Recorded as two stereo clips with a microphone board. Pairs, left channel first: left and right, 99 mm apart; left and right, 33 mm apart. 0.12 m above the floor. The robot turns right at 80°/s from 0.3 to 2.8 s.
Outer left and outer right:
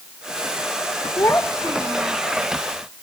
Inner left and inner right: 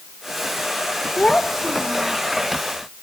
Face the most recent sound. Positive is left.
turn(degrees=-85)